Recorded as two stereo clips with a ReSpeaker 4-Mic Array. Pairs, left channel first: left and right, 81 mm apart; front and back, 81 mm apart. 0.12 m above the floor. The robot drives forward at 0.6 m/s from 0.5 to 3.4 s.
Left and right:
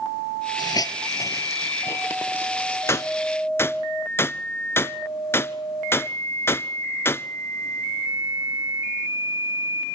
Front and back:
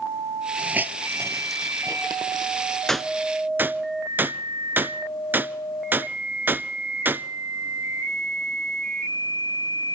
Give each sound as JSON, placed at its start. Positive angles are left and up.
{"t": 0.6, "sound": "a hiss", "azimuth_deg": 105, "distance_m": 0.8}
{"t": 2.9, "sound": "a gunshot", "azimuth_deg": 80, "distance_m": 0.5}